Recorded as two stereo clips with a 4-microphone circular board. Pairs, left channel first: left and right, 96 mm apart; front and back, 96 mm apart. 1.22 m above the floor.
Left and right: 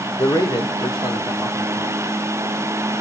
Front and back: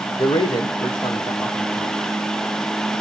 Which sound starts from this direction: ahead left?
A man speaking, at 0.2 s.